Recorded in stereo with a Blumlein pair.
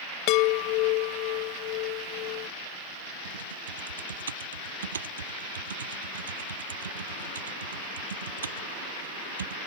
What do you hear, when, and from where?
0.3 s a chime: 40° left
3.2 s typing on a keyboard: 70° right